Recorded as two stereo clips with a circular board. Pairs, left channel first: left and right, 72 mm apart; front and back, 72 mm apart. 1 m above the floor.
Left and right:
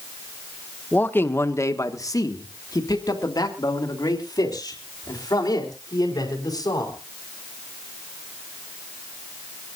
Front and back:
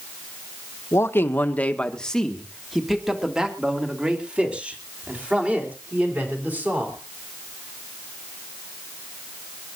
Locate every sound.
0.9 s a man speaking: 35° left, 1.1 m; by 7.0 s 115° left, 4.5 m